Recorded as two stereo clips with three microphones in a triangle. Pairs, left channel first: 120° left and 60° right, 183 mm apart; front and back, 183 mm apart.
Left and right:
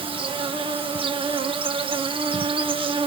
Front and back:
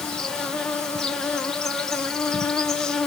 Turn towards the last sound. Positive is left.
turn(degrees=-85)